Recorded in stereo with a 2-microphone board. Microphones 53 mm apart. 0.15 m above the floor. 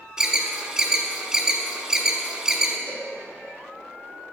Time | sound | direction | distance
0.2 | an alarm | 15° right (ahead or behind) | 0.8 m
2.9 | a cowbell | 50° left (ahead or behind) | 2.5 m